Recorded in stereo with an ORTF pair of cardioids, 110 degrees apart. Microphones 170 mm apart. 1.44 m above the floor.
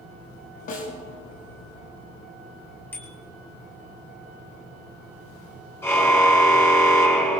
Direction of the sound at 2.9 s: 15° left.